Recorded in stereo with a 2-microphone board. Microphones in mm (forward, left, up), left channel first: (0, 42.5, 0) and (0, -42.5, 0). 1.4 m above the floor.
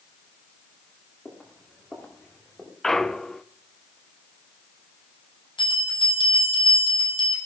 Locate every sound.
1.2 s footsteps: 20° left (ahead or behind), 7 m; by 2.7 s 10° left (ahead or behind), 8 m
2.8 s a clunk: 5° left (ahead or behind), 0.6 m
5.6 s a bell: 70° left (ahead or behind), 9.5 m